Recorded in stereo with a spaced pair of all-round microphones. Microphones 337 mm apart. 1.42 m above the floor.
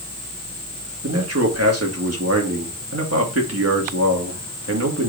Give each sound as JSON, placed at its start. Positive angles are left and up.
{"t": 1.0, "sound": "a man speaking", "side_deg": -50, "distance_m": 2.0}